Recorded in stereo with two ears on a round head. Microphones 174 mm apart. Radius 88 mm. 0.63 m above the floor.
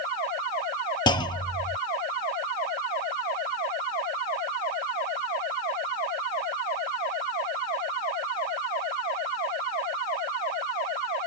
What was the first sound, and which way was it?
A clunk, 20° left (ahead or behind).